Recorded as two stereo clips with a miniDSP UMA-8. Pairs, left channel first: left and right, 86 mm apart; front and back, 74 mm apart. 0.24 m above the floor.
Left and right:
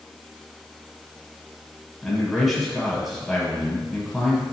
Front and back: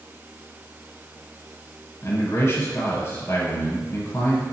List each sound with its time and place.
2.0 s a man speaking: 5° left, 1.4 m